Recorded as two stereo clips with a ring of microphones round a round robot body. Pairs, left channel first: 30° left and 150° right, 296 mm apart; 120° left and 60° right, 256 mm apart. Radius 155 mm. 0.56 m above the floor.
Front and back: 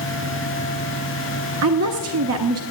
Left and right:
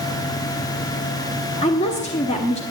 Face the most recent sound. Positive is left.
turn(degrees=-175)